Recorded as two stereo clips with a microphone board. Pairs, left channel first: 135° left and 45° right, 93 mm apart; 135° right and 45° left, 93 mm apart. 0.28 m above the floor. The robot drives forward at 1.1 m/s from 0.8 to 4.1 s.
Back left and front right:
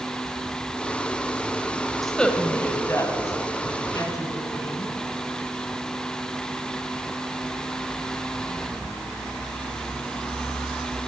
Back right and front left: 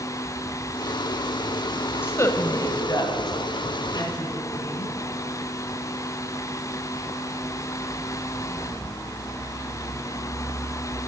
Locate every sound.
2.0 s a woman speaking: 135° right, 0.9 m; by 5.0 s 175° right, 2.5 m